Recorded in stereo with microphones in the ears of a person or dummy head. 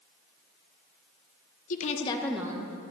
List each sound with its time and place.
1.7 s a woman speaking: 40° left (ahead or behind), 0.8 m; by 2.8 s 30° right (ahead or behind), 0.6 m